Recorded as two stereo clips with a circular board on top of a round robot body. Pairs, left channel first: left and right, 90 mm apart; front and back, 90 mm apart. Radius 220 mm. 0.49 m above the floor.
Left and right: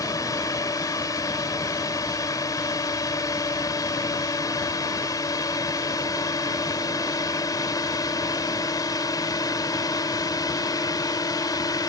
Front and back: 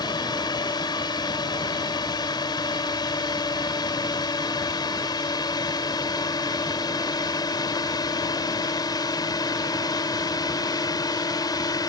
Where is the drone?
40° left; by 11.9 s 45° left.